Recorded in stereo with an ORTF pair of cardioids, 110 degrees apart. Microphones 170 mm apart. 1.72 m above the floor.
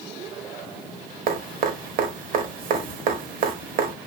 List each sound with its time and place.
1.3 s dripping: 55° right, 0.9 m